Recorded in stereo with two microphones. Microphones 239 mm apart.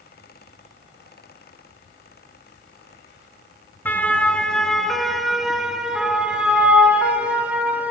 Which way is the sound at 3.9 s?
10° left (ahead or behind).